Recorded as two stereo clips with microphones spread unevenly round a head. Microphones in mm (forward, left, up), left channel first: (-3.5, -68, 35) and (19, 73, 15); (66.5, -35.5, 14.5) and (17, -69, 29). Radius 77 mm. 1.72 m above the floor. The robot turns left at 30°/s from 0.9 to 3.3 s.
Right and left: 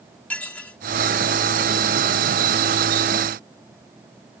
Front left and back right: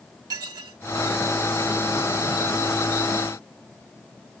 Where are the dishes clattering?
175° right.